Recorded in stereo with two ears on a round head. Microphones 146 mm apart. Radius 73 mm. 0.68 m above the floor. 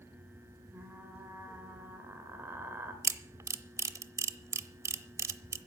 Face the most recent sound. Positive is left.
turn(degrees=-20)  # may be behind; listen again after turning